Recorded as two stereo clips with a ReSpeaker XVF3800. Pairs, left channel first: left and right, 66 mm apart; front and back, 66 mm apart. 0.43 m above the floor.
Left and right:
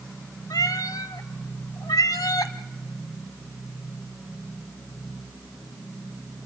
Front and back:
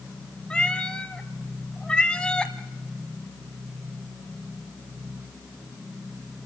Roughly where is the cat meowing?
Left.